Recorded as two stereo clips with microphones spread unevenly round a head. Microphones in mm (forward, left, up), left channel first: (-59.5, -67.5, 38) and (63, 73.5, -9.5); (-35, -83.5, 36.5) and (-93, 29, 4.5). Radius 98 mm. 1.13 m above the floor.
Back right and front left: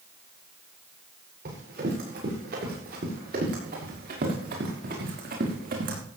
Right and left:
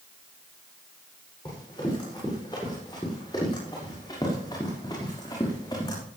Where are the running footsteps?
5° left, 8 m.